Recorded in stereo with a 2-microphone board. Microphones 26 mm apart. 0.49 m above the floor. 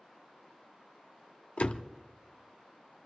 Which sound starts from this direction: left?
A door slam, at 1.6 s.